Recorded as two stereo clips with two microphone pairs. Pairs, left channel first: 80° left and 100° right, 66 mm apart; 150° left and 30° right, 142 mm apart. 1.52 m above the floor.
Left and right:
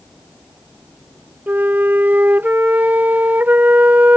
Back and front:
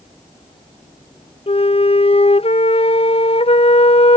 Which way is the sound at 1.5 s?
165° right.